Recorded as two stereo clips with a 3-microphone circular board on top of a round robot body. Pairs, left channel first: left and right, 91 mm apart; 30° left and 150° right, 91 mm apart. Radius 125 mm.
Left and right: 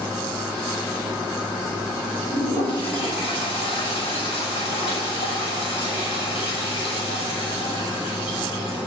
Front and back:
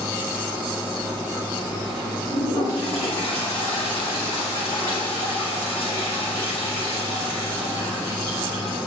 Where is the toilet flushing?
90° left, 9 m.